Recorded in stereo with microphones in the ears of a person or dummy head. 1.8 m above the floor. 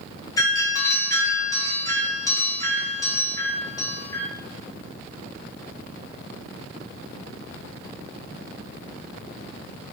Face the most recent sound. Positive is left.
turn(degrees=20)  # may be behind; listen again after turning